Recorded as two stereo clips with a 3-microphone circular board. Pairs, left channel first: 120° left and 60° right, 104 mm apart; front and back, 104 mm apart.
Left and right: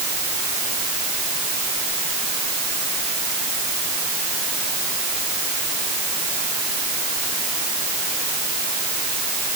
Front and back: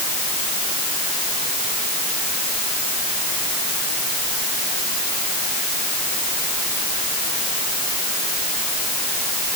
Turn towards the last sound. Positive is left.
No sound to turn to.